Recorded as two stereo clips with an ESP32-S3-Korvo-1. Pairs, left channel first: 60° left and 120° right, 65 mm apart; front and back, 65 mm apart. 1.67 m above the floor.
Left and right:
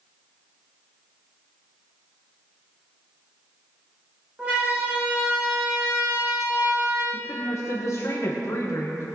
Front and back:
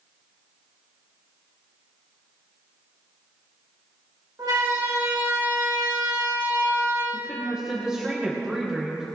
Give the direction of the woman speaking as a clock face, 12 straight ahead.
9 o'clock.